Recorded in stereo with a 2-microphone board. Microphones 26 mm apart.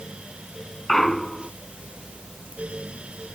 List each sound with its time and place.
0.9 s a clunk: 15° left (ahead or behind)